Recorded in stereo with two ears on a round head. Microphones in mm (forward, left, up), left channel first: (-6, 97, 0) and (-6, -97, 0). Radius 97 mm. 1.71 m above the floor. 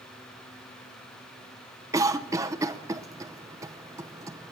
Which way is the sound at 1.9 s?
15° right (ahead or behind).